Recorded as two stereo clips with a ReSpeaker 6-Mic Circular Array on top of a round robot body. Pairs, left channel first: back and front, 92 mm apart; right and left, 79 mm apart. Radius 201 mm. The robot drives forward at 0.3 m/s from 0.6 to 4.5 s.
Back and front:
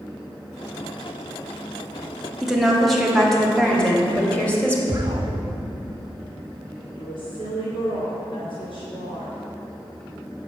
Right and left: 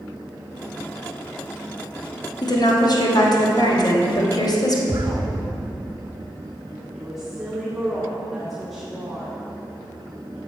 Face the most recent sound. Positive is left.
turn(degrees=175)